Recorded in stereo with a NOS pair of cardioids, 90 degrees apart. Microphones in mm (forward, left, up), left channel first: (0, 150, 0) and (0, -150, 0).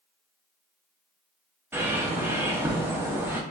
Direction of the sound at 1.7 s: 5° right.